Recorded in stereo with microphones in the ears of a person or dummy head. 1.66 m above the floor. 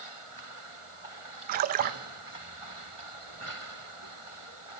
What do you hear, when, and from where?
1.5 s a splash: 45° right (ahead or behind), 0.7 m